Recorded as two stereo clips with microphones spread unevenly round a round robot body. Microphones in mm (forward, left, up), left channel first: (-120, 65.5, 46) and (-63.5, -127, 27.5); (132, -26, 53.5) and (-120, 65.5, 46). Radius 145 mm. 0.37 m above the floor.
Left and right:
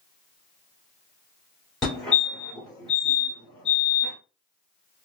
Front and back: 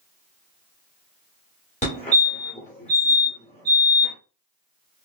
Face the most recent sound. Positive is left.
turn(degrees=10)